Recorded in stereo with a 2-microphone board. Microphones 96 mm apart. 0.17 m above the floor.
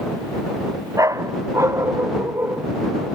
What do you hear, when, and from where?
1.0 s a dog barking: 35° right (ahead or behind); by 2.7 s 25° right (ahead or behind)